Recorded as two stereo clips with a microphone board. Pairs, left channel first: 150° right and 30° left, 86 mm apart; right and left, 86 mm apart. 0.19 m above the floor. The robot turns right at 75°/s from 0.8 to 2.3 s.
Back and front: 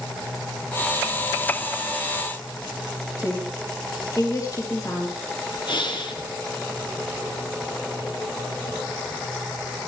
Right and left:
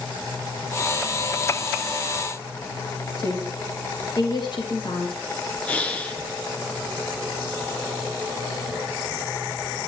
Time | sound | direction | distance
3.2 | a woman speaking | 105° right | 3.5 m
5.7 | breathing | 160° right | 1.7 m